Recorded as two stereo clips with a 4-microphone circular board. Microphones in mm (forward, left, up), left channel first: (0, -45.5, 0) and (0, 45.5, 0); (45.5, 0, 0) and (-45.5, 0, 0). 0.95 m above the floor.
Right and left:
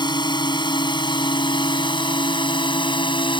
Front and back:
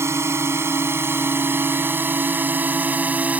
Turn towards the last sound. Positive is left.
turn(degrees=-105)